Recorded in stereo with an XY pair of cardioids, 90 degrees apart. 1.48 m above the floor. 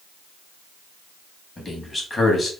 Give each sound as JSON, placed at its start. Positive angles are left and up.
{"t": 1.6, "sound": "a man speaking", "azimuth_deg": 30, "distance_m": 2.5}